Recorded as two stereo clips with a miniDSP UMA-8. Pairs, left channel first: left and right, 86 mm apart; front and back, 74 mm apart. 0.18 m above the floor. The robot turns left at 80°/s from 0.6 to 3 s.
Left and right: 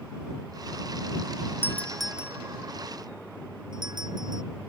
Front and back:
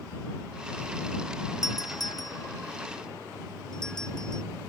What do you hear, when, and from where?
1.6 s a doorbell: 30° left; by 4.4 s 80° right